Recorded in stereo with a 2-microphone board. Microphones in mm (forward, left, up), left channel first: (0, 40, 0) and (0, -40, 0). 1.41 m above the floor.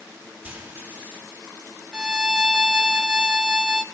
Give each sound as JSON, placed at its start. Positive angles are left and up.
{"t": 0.4, "sound": "frying", "side_deg": -25, "distance_m": 4.0}
{"t": 1.9, "sound": "a violin", "side_deg": -10, "distance_m": 0.6}